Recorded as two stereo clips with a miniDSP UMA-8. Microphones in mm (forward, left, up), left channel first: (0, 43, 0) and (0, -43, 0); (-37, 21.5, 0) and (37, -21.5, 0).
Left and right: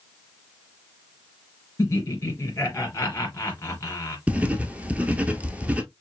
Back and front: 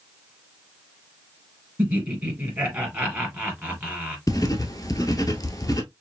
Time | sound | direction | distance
1.8 | laughter | 35° left | 3 m
4.3 | writing | 165° right | 0.9 m